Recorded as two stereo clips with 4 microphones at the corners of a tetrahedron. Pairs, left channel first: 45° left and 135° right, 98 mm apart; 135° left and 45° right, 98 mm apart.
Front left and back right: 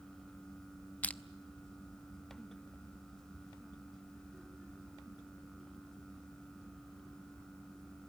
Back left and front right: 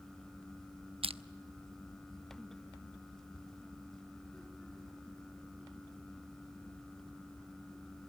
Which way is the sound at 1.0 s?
30° right.